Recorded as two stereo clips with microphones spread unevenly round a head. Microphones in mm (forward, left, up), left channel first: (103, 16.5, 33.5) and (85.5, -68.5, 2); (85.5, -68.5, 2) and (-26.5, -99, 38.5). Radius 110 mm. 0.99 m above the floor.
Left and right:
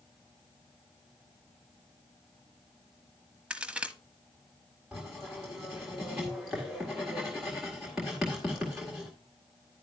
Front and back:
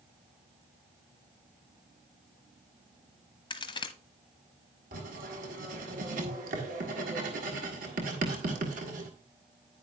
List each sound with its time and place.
3.5 s a crack: 10° left, 0.8 m
4.9 s writing: 170° left, 1.7 m